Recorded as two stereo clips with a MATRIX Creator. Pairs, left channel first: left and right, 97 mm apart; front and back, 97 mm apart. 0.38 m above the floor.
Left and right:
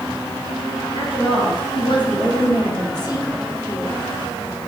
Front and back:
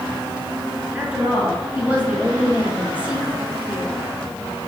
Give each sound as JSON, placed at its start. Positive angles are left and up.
{"t": 0.9, "sound": "a woman speaking", "azimuth_deg": 105, "distance_m": 3.0}